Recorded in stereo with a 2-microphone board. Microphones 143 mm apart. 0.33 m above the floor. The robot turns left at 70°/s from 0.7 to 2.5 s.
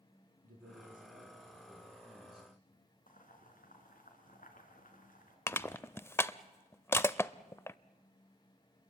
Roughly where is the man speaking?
Right.